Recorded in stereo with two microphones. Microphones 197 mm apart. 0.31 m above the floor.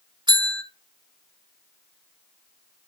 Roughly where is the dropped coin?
No dropped coin in this recording.